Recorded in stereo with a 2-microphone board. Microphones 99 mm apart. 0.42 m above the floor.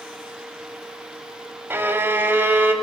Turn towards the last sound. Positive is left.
turn(degrees=-20)  # may be behind; listen again after turning